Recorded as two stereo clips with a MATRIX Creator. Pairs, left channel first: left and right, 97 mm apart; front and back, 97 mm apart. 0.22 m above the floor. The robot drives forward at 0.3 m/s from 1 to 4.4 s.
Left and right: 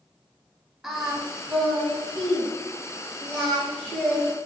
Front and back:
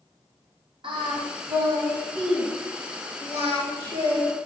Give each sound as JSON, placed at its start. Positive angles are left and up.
{"t": 0.8, "sound": "singing", "azimuth_deg": -175, "distance_m": 1.3}